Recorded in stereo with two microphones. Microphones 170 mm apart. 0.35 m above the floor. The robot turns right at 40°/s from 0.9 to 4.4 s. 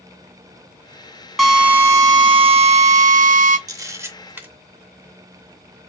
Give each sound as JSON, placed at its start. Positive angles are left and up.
{"t": 1.4, "sound": "a drill", "azimuth_deg": 180, "distance_m": 0.6}
{"t": 3.7, "sound": "a camera shutter", "side_deg": -20, "distance_m": 0.7}